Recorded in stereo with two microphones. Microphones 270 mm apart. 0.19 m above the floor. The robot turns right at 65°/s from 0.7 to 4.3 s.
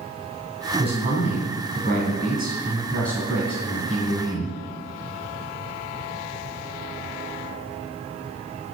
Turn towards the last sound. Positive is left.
turn(degrees=90)